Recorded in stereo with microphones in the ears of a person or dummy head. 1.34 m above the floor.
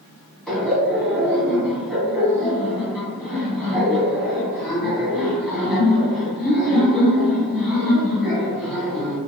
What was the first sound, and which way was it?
Laughter, 5° left (ahead or behind).